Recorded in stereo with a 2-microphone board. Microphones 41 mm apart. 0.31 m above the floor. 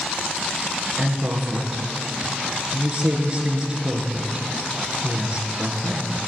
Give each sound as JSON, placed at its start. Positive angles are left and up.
{"t": 1.0, "sound": "a woman speaking", "side_deg": -20, "distance_m": 4.5}